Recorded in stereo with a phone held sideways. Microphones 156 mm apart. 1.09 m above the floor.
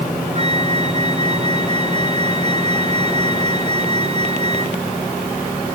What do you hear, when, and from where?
0.3 s a flute: 40° right (ahead or behind)